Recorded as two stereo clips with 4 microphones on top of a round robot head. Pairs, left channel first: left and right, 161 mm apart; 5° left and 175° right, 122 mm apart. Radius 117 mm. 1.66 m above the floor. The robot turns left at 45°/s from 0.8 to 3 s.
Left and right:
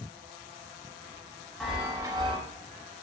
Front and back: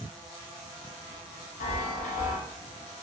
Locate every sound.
1.6 s a chime: straight ahead, 0.5 m; by 2.4 s 30° right, 0.5 m